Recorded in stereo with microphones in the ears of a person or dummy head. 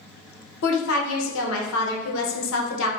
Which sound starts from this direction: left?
A woman speaking, at 0.6 s.